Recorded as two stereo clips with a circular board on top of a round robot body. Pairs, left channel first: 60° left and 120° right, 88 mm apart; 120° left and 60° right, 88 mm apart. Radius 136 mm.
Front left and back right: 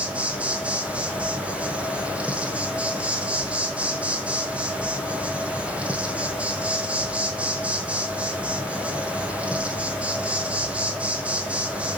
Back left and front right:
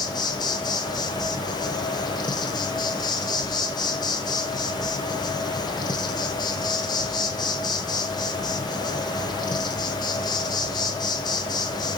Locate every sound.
0.0 s an insect: 165° left, 1.1 m